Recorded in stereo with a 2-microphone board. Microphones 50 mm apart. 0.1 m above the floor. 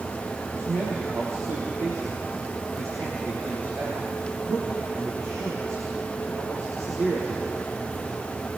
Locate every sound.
0.6 s a man speaking: 70° right (ahead or behind), 4.5 m